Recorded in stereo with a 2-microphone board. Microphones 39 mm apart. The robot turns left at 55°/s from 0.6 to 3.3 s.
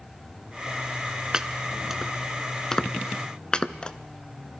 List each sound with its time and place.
1.3 s chopping: 20° right (ahead or behind), 0.5 m; by 3.9 s 25° left (ahead or behind), 0.5 m